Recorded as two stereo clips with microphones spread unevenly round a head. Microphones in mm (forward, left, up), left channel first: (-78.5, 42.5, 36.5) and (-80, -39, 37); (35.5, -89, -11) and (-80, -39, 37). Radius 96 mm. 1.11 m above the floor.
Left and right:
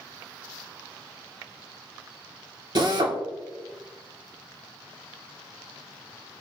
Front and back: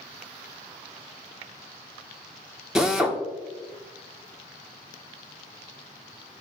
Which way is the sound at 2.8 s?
105° right.